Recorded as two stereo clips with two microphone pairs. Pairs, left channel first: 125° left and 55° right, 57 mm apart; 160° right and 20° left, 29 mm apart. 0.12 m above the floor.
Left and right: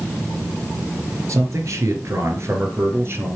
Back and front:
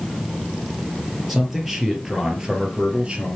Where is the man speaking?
60° right, 3 m; by 3.4 s 20° right, 2.5 m.